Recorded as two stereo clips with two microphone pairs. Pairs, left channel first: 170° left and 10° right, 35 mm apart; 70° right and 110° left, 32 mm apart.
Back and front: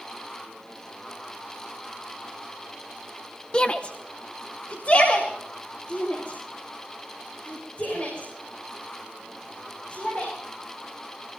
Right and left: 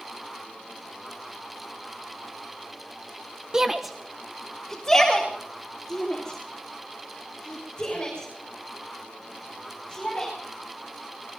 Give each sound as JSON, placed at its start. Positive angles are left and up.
{"t": 3.5, "sound": "a shout", "azimuth_deg": 150, "distance_m": 0.8}